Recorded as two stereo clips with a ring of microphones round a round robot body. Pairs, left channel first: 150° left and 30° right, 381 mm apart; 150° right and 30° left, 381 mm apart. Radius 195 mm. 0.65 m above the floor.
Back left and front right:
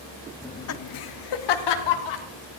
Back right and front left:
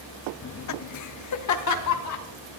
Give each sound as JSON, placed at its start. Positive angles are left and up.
{"t": 0.4, "sound": "laughter", "azimuth_deg": -130, "distance_m": 0.6}